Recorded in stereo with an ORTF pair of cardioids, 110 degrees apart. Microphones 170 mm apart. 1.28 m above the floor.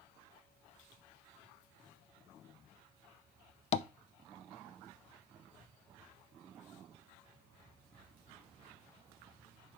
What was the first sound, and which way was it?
Tapping, 40° left.